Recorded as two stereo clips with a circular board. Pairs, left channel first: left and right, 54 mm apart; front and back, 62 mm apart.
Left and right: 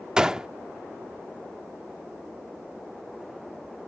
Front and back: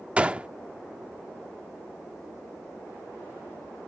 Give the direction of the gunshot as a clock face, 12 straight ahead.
5 o'clock.